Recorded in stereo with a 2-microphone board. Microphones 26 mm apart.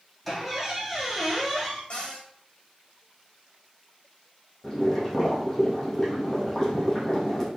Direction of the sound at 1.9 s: 45° left (ahead or behind).